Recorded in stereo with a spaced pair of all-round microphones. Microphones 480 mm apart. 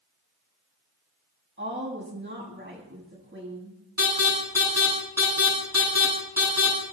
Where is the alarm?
30° left (ahead or behind), 10 m.